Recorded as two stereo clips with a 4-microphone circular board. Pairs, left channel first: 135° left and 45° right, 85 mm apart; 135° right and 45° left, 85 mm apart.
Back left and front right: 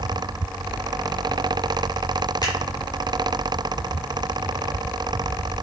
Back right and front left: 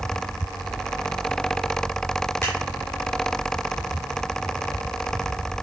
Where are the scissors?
170° left, 4.5 m.